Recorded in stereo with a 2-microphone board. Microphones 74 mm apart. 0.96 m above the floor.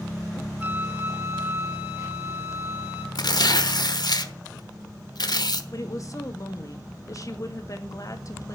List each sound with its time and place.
0.6 s a flute: 20° right (ahead or behind), 2 m
3.1 s tearing paper: 70° left (ahead or behind), 1.1 m
5.7 s a woman speaking: 45° left (ahead or behind), 1.7 m